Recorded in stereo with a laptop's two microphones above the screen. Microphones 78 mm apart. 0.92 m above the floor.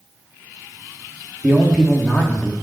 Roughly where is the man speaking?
Centre.